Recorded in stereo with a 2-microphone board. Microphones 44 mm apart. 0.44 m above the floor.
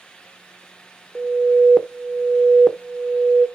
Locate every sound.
1.1 s an alarm: centre (ahead or behind), 1.1 m